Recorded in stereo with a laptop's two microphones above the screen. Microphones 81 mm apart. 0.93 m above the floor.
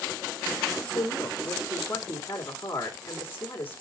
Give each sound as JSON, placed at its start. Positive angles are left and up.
{"t": 0.9, "sound": "a woman speaking", "side_deg": 25, "distance_m": 2.0}